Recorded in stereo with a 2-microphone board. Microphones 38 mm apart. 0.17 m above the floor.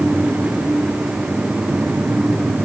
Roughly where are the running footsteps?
No running footsteps in this recording.